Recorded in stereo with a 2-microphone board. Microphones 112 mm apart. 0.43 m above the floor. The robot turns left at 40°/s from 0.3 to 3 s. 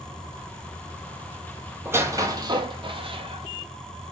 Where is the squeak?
20° right (ahead or behind), 0.7 m; by 4.1 s 55° right (ahead or behind), 0.7 m.